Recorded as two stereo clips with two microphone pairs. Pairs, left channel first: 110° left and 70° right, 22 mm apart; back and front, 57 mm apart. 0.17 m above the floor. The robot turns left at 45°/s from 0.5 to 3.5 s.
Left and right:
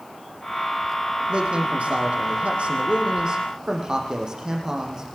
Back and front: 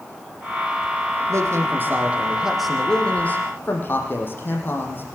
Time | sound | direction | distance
1.3 | a man speaking | 30° right | 5.5 m